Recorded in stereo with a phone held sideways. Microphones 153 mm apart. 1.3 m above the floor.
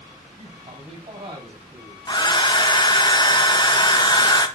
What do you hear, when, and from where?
0.4 s a man speaking: 40° right (ahead or behind), 6 m
2.1 s a hair dryer: 30° left (ahead or behind), 0.7 m